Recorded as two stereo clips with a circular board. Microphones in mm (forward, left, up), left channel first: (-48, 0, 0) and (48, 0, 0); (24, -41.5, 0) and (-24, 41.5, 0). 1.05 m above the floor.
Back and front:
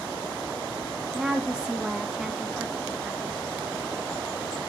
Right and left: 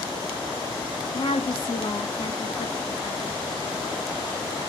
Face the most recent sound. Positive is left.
turn(degrees=-80)